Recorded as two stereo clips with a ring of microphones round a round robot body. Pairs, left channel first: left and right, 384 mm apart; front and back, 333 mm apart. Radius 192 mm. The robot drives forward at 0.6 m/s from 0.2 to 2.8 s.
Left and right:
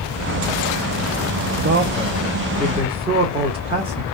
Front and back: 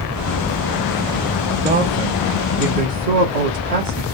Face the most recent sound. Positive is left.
turn(degrees=-165)